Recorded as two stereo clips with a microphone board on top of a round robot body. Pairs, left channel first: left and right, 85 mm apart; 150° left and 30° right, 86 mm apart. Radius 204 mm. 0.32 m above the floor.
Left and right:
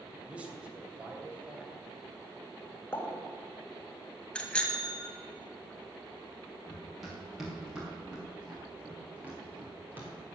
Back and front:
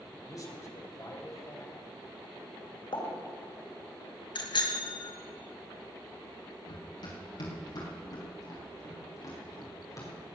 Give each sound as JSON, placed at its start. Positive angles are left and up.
{"t": 0.3, "sound": "a man speaking", "azimuth_deg": -165, "distance_m": 3.0}
{"t": 2.9, "sound": "a pop", "azimuth_deg": 150, "distance_m": 3.0}
{"t": 4.3, "sound": "a bicycle bell", "azimuth_deg": 170, "distance_m": 2.0}
{"t": 6.7, "sound": "running footsteps", "azimuth_deg": 180, "distance_m": 5.0}